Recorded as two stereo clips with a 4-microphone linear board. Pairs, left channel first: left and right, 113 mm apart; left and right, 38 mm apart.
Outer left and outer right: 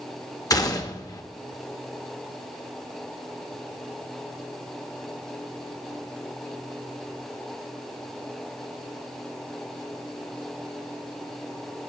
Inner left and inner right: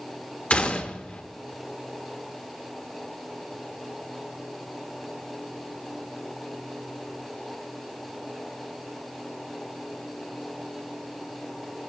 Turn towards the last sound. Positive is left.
turn(degrees=35)  # may be behind; listen again after turning